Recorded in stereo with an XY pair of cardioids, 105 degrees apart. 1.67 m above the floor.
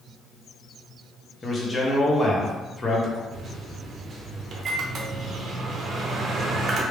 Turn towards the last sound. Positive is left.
turn(degrees=-50)